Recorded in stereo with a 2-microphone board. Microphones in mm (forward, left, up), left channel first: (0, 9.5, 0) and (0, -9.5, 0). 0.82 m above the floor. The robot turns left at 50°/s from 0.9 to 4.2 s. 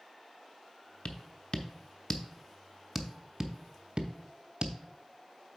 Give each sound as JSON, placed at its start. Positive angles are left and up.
{"t": 1.1, "sound": "tapping", "side_deg": 65, "distance_m": 0.6}